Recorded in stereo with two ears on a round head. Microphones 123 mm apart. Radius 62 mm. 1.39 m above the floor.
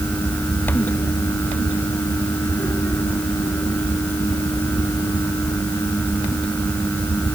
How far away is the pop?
I don't hear a pop.